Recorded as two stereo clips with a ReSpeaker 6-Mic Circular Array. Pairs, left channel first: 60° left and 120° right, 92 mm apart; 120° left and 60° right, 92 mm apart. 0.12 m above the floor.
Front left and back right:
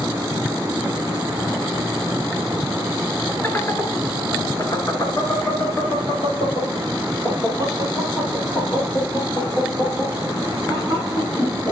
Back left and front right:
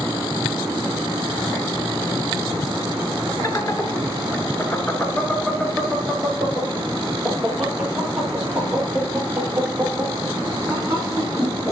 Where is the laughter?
110° left, 1.5 m; by 11.7 s 15° left, 4 m.